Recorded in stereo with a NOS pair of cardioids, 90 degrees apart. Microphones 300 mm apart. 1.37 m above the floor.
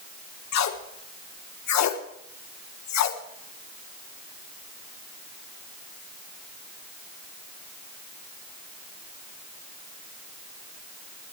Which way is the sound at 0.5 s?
65° left.